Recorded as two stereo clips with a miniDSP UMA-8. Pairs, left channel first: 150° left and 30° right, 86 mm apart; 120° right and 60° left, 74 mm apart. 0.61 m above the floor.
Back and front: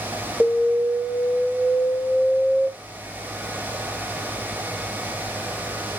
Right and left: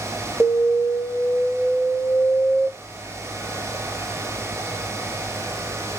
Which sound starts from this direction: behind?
An alarm, at 0.4 s.